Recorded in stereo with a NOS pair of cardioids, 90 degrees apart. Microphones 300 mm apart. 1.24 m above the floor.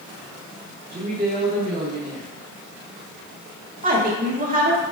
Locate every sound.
0.9 s a woman speaking: 30° right, 1.6 m
3.8 s a woman speaking: 30° right, 1.6 m